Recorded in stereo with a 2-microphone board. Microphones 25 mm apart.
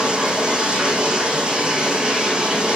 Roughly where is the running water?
Right.